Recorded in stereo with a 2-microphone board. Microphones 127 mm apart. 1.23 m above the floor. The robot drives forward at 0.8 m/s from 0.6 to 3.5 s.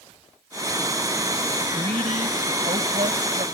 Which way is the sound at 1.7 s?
60° right (ahead or behind).